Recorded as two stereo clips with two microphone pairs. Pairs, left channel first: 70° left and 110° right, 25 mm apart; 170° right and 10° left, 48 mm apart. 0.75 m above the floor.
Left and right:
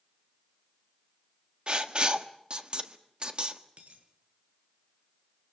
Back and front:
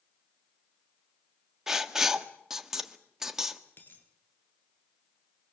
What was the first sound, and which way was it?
Writing, 70° right.